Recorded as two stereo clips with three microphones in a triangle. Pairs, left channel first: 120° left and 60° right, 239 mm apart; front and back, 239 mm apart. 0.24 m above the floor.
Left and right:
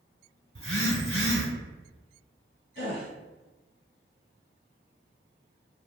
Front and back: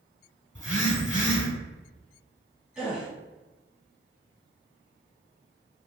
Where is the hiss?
I don't hear a hiss.